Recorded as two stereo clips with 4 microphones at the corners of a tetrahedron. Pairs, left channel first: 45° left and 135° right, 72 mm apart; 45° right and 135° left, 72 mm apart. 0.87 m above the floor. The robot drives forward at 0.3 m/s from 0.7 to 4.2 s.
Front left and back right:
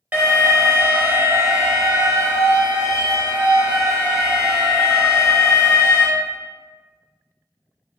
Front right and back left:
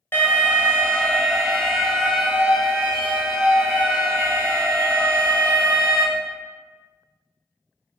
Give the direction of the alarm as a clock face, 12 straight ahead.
3 o'clock.